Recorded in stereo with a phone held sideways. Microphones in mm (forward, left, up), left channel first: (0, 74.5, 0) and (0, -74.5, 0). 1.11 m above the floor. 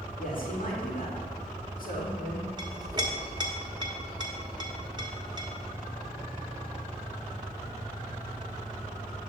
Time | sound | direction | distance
0.2 | a man speaking | 70° left (ahead or behind) | 2 m
2.6 | a clink | 30° right (ahead or behind) | 1.1 m